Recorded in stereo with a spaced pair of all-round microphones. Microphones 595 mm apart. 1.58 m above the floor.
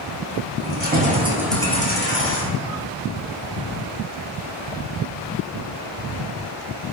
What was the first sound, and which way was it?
Keys jangling, 20° right (ahead or behind).